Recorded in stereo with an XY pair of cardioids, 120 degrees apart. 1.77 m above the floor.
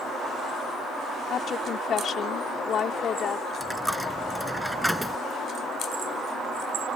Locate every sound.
1.3 s a woman speaking: 50° left
3.6 s a dropped coin: straight ahead